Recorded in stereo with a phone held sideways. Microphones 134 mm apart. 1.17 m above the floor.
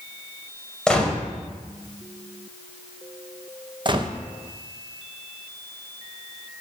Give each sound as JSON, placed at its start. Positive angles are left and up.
{"t": 0.9, "sound": "a gunshot", "side_deg": 5, "distance_m": 2.0}
{"t": 3.9, "sound": "a gunshot", "side_deg": -35, "distance_m": 0.8}